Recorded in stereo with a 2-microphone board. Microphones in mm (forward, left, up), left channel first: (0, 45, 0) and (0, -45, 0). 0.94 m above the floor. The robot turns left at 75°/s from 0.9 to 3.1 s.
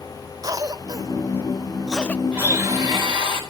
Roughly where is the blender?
Ahead.